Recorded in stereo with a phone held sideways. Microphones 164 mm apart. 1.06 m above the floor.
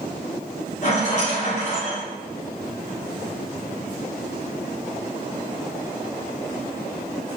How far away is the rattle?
About 1.0 m.